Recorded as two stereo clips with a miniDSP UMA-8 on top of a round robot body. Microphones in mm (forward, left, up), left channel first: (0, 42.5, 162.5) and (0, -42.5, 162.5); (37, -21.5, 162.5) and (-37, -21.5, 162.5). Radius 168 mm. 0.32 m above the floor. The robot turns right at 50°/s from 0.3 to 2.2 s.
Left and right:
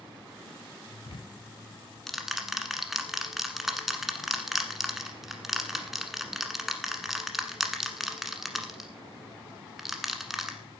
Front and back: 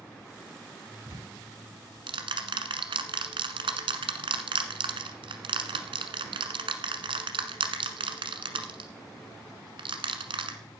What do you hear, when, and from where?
1.1 s ticking: 125° left, 1.3 m; by 10.6 s straight behind, 1.3 m